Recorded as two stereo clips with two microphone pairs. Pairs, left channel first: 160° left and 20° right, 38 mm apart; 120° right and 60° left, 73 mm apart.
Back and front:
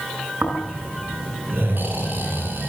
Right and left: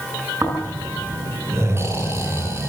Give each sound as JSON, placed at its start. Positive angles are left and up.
{"t": 0.4, "sound": "snoring", "azimuth_deg": 5, "distance_m": 7.5}